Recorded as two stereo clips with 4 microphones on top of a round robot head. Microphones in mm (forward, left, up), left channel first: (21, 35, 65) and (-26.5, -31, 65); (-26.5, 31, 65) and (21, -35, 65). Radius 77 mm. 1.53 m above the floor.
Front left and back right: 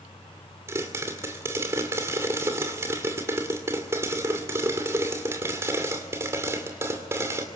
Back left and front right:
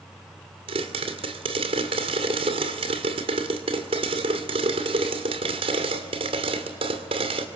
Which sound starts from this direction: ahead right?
A pop, at 0.7 s.